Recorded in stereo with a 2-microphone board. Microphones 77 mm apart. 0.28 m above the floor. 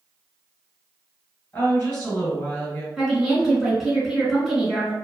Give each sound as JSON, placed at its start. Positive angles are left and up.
{"t": 1.5, "sound": "a woman speaking", "side_deg": 30, "distance_m": 1.4}
{"t": 3.0, "sound": "a woman speaking", "side_deg": -5, "distance_m": 1.1}